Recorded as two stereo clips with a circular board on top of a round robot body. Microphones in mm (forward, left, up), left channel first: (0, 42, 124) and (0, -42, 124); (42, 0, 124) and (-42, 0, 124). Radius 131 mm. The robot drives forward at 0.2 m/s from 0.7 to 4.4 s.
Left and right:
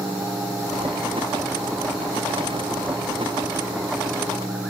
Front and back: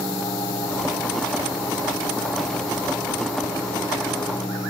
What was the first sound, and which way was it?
Only background noise.